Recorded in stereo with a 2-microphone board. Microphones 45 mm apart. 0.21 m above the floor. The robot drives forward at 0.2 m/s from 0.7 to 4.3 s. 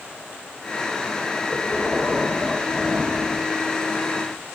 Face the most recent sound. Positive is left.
turn(degrees=-5)  # may be behind; listen again after turning